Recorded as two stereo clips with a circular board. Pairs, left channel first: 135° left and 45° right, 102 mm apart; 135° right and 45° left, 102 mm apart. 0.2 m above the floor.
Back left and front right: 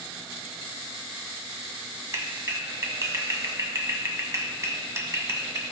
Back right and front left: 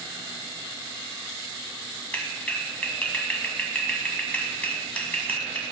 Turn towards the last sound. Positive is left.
turn(degrees=-70)